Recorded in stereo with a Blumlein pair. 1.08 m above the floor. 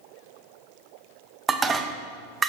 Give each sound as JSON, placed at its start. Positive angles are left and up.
{"t": 1.5, "sound": "dishes clattering", "azimuth_deg": -15, "distance_m": 0.5}